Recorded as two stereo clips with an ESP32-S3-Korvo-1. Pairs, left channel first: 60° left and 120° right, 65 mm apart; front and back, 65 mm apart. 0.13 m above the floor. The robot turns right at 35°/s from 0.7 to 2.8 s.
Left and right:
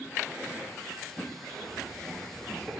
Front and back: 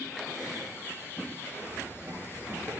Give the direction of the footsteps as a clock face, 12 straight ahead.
8 o'clock.